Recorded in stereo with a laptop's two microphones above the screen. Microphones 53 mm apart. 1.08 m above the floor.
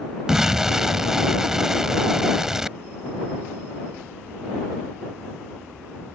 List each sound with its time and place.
0.3 s an explosion: 10° right (ahead or behind)